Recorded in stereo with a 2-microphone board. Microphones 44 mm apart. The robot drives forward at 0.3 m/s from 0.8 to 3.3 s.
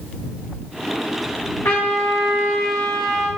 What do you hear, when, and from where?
1.6 s a trumpet: 75° left (ahead or behind), 3.5 m; by 3.3 s 70° left (ahead or behind), 3.5 m